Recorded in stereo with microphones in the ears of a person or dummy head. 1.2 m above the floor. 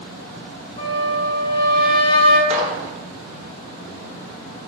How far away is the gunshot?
About 0.7 m.